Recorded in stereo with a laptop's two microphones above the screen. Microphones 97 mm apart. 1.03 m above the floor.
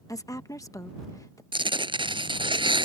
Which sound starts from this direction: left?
A woman speaking, at 0.1 s.